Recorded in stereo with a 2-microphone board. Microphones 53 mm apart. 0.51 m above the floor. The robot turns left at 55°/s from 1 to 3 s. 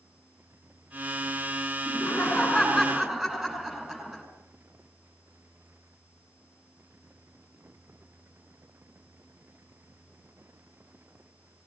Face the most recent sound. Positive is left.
turn(degrees=-15)